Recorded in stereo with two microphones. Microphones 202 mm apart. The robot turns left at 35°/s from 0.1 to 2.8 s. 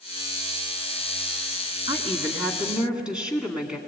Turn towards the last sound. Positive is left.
turn(degrees=-175)